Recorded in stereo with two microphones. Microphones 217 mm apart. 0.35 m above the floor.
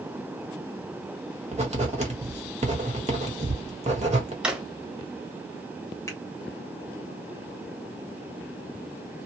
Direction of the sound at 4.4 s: 5° right (ahead or behind).